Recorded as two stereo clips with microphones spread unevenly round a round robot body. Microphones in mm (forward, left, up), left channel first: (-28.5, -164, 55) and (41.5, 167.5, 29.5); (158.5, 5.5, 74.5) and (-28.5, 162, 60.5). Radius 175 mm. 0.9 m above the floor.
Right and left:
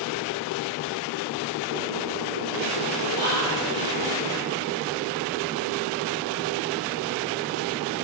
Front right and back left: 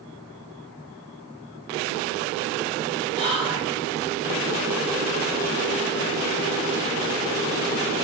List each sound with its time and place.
3.1 s whispering: 175° right, 1.1 m